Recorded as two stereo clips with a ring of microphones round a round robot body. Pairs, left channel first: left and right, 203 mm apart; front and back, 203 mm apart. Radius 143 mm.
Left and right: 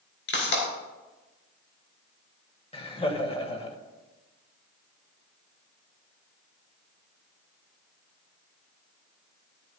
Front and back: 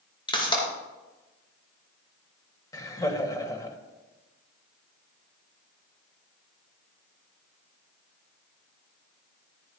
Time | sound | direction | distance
0.3 | a pop | 65° left | 5.5 m
2.7 | laughter | 55° left | 1.6 m